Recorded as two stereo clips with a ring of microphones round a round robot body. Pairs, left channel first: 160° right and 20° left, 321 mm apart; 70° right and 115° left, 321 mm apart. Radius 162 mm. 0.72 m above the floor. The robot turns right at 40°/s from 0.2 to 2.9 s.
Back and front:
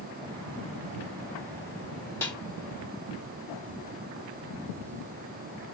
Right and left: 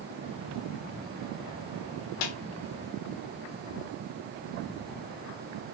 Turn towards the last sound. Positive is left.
turn(degrees=-45)